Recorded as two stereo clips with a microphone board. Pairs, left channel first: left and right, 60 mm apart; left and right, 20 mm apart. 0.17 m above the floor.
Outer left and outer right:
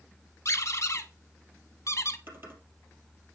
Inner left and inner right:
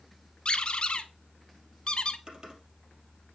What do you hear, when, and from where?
0.5 s a squeak: 55° left (ahead or behind), 0.6 m
2.3 s typing on a keyboard: 40° right (ahead or behind), 2.5 m